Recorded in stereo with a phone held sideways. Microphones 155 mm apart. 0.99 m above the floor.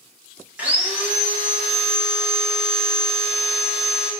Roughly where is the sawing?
Centre.